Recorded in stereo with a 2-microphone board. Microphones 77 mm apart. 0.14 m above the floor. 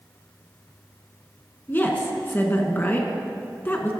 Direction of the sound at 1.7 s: 30° left (ahead or behind).